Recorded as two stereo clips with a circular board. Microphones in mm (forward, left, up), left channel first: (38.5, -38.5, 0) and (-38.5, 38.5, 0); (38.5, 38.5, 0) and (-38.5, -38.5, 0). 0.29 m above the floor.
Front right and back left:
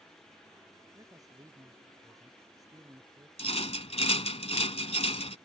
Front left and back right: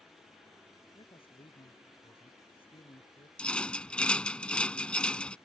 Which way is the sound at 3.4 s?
35° right.